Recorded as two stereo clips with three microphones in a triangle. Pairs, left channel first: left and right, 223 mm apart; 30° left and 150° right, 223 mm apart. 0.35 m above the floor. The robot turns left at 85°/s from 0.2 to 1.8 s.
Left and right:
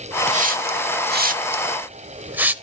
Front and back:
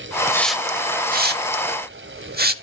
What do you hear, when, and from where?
0.3 s a hiss: 40° right, 0.8 m; by 2.5 s 170° right, 0.8 m